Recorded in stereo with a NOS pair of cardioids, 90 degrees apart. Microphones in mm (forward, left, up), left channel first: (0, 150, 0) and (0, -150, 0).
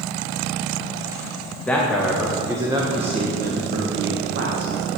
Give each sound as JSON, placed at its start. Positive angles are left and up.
{"t": 1.7, "sound": "a man speaking", "azimuth_deg": 5, "distance_m": 2.0}